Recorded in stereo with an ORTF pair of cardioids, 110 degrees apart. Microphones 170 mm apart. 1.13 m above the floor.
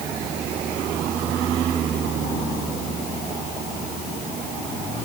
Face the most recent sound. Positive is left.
No sound to turn to.